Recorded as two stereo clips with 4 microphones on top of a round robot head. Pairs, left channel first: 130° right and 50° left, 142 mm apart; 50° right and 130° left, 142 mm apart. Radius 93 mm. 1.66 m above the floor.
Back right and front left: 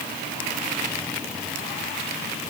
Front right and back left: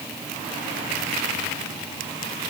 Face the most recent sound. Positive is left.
No sound to turn to.